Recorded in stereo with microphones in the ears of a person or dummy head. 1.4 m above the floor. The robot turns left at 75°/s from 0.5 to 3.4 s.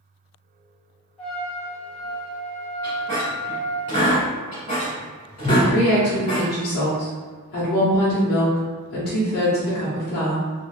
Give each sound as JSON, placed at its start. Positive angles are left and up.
{"t": 1.2, "sound": "a trumpet", "azimuth_deg": 15, "distance_m": 1.2}
{"t": 2.8, "sound": "a squeak", "side_deg": 10, "distance_m": 1.5}
{"t": 5.5, "sound": "a woman speaking", "side_deg": 50, "distance_m": 0.9}